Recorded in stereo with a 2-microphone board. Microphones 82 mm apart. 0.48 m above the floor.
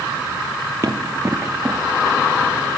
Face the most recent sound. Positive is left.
turn(degrees=5)  # may be behind; listen again after turning